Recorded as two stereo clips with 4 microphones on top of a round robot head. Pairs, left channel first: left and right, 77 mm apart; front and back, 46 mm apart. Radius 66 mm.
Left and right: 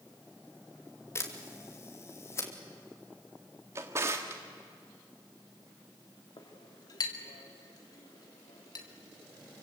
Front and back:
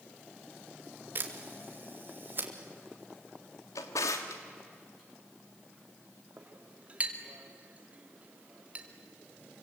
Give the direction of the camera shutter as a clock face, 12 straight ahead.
7 o'clock.